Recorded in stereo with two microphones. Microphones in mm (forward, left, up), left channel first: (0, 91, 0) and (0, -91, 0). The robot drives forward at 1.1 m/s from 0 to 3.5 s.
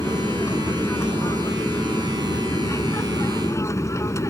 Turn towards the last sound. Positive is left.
turn(degrees=15)  # may be behind; listen again after turning